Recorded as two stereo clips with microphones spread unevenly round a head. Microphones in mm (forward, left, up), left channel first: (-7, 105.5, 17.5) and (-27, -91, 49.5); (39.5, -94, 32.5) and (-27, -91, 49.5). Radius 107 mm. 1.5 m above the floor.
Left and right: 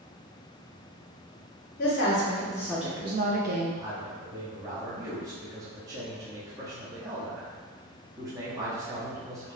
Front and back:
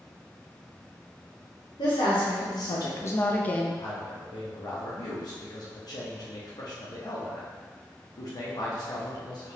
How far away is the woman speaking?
About 0.9 m.